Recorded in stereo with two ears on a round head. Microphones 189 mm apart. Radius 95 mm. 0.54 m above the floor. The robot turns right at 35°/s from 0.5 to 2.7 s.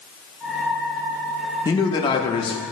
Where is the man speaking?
20° left (ahead or behind), 0.6 m; by 2.6 s 25° left (ahead or behind), 0.6 m.